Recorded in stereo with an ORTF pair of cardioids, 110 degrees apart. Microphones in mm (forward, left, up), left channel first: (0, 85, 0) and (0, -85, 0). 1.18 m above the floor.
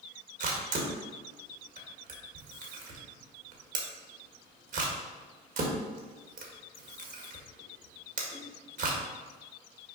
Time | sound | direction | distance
0.4 | a camera shutter | 55° right | 1.7 m